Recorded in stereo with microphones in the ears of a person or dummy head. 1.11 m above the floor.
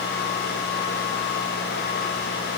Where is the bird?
I don't hear a bird.